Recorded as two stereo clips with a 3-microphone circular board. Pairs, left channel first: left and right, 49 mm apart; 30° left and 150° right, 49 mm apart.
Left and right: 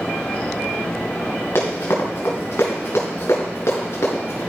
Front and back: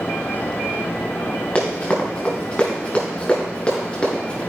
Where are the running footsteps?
100° left, 3 m.